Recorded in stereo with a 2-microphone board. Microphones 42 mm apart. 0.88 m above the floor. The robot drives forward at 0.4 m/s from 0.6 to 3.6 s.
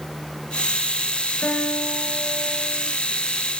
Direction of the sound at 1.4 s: 50° left (ahead or behind).